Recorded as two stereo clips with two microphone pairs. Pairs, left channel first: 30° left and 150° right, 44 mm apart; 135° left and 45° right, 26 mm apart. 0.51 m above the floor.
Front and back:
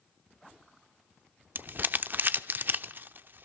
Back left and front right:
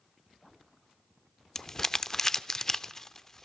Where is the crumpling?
165° right, 0.6 m.